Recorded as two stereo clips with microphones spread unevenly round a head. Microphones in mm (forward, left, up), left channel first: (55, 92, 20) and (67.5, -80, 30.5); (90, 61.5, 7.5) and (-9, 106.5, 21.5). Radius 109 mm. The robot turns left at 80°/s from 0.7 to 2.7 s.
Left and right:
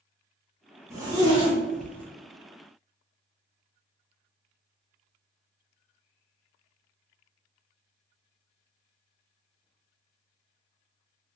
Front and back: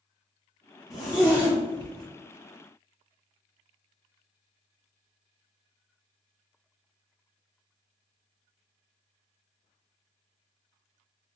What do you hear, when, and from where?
0.9 s a zipper: 50° right, 0.6 m; by 2.1 s 140° right, 0.6 m